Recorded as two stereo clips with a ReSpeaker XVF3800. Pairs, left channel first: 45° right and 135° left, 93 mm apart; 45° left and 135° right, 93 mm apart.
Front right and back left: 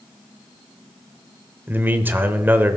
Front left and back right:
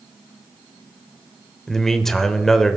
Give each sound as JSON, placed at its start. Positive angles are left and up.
{"t": 1.7, "sound": "a man speaking", "azimuth_deg": 125, "distance_m": 0.8}